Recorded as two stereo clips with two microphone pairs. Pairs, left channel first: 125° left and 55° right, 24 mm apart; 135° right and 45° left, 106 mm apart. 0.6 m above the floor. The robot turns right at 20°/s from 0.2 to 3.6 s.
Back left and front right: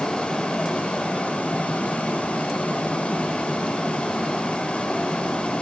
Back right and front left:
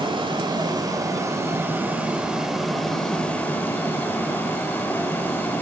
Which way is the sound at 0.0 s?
80° left.